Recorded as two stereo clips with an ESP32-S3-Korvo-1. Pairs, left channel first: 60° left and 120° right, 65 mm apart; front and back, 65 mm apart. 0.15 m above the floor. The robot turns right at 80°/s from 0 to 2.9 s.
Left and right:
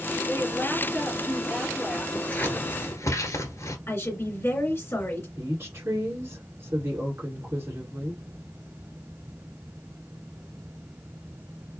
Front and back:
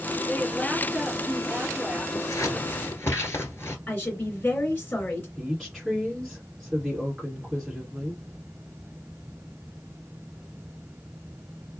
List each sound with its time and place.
0.3 s a woman speaking: 50° left, 2.0 m; by 2.0 s 165° right, 2.0 m
2.1 s scissors: 20° right, 1.3 m; by 3.8 s 40° left, 1.3 m
3.9 s a woman speaking: 40° left, 2.5 m
5.4 s a woman speaking: 100° right, 2.0 m